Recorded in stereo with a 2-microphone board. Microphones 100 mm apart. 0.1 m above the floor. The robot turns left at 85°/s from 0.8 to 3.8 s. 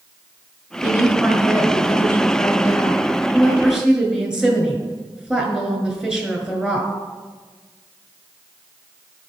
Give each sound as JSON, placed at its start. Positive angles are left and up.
{"t": 0.8, "sound": "a woman speaking", "side_deg": -25, "distance_m": 1.4}